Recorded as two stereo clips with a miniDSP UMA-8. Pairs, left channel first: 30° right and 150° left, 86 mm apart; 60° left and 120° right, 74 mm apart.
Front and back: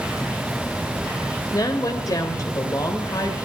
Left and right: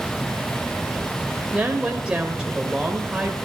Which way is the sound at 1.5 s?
50° right.